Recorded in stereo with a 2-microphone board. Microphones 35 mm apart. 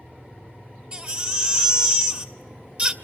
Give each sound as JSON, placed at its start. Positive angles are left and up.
{"t": 0.9, "sound": "a baby crying", "side_deg": -30, "distance_m": 1.6}